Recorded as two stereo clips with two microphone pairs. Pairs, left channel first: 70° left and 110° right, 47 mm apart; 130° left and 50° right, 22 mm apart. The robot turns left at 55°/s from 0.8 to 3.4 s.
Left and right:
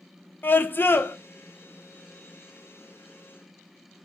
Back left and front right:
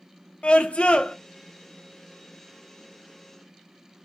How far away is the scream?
About 0.6 m.